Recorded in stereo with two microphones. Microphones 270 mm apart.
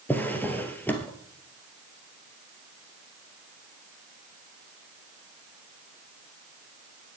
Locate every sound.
0.1 s a drawer: 5° left (ahead or behind), 2 m